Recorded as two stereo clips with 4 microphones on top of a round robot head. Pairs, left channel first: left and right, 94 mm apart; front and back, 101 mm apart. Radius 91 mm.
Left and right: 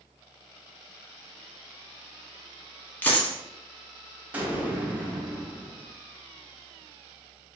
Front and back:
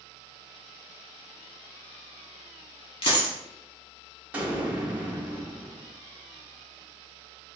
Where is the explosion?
130° right, 0.8 m.